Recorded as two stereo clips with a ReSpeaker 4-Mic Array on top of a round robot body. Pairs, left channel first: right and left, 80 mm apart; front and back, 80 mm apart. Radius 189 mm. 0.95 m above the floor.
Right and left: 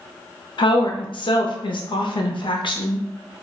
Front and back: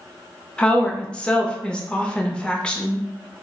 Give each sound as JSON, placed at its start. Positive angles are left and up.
{"t": 0.6, "sound": "a woman speaking", "azimuth_deg": -80, "distance_m": 0.6}